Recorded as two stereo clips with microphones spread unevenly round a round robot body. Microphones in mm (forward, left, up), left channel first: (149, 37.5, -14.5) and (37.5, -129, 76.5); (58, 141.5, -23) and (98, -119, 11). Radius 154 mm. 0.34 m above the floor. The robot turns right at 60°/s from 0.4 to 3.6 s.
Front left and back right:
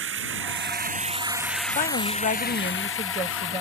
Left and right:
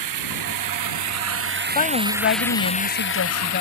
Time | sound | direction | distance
0.0 | running water | 105° right | ?
1.8 | a woman speaking | 40° left | ?